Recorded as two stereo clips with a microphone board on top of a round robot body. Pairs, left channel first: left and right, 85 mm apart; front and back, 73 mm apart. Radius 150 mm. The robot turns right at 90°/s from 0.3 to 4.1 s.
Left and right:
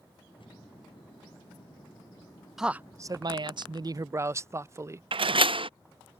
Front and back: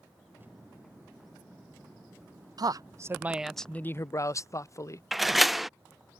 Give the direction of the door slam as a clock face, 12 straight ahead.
3 o'clock.